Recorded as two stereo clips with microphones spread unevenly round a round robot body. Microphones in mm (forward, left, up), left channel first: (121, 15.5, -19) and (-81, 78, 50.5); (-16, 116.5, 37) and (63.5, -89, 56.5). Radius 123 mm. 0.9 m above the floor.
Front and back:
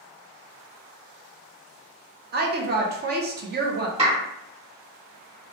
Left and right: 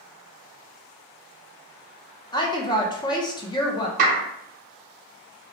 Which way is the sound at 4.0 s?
125° right.